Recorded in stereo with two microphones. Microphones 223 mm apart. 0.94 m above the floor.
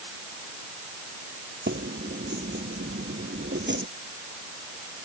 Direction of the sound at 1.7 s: 55° right (ahead or behind).